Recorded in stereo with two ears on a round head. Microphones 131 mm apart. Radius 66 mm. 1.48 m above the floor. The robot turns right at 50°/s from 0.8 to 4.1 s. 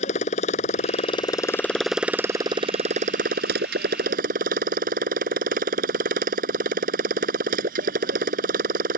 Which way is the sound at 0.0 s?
125° left.